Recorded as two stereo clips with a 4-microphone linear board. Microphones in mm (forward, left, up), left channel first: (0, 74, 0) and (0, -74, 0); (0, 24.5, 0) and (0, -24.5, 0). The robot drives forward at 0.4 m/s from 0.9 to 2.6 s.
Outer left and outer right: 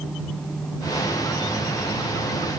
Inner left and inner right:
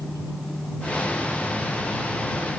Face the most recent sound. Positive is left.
No sound to turn to.